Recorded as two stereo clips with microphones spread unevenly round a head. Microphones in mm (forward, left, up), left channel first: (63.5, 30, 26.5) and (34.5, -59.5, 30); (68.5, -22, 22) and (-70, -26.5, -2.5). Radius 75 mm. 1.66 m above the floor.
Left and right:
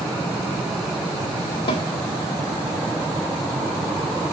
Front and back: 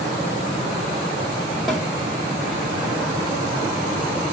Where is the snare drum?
85° left, 2 m.